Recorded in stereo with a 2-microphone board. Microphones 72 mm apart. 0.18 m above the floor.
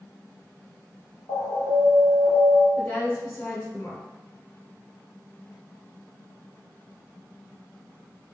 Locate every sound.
1.3 s an alarm: 60° left (ahead or behind), 1.3 m
2.8 s a woman speaking: 25° left (ahead or behind), 1.2 m